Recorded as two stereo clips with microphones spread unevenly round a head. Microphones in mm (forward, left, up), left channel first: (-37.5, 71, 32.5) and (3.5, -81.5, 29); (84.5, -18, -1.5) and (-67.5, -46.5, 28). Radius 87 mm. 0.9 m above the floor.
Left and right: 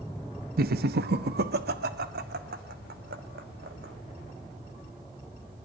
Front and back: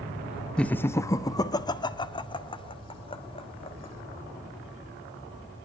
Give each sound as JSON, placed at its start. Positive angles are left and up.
{"t": 0.6, "sound": "laughter", "azimuth_deg": -65, "distance_m": 0.8}